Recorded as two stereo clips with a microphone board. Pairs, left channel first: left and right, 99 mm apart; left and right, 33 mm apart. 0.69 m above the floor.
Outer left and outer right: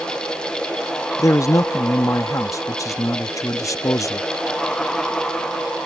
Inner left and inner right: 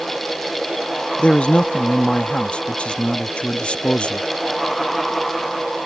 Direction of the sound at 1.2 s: 35° left (ahead or behind).